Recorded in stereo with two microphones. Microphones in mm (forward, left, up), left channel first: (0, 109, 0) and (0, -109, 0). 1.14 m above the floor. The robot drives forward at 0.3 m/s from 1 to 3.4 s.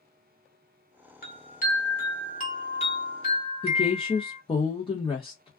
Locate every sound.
1.2 s a chime: 40° left (ahead or behind), 1.2 m; by 4.4 s 25° left (ahead or behind), 1.8 m
3.6 s a woman speaking: 25° left (ahead or behind), 0.9 m